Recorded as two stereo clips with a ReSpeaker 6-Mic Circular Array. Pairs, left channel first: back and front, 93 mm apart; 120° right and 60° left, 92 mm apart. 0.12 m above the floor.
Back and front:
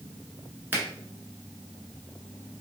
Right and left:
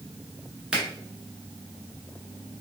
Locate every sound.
0.7 s a finger snap: 5° right, 1.0 m